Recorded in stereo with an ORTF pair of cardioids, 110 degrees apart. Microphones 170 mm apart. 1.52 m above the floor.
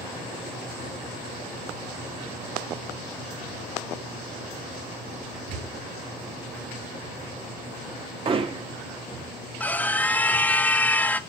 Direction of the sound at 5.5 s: 65° right.